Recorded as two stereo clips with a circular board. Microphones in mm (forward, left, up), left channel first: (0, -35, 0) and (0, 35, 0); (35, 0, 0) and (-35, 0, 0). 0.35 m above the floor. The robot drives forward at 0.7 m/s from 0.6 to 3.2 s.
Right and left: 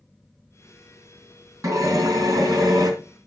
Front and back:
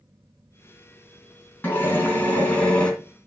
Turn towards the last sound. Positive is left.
turn(degrees=75)